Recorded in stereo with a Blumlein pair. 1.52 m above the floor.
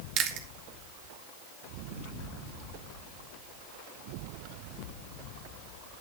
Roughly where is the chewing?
Ahead right.